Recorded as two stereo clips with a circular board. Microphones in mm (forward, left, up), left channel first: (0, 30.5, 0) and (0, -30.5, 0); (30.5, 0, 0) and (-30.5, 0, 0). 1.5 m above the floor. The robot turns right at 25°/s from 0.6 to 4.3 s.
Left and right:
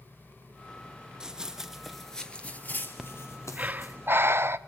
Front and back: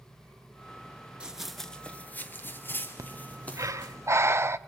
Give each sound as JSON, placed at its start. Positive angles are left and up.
{"t": 1.2, "sound": "running footsteps", "azimuth_deg": -140, "distance_m": 1.5}
{"t": 3.0, "sound": "breathing", "azimuth_deg": -170, "distance_m": 0.6}